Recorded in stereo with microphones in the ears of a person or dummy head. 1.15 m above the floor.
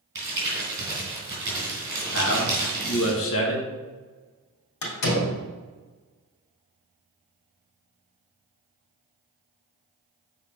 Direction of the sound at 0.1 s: 20° right (ahead or behind).